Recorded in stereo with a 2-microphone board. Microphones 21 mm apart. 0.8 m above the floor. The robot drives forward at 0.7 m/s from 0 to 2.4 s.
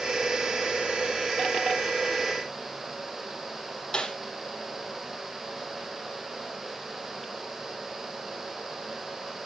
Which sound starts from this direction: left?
A snare drum, at 3.9 s.